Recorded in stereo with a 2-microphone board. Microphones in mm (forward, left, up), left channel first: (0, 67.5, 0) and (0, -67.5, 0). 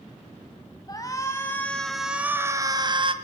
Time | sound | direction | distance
0.9 | a shout | 30° left (ahead or behind) | 2 m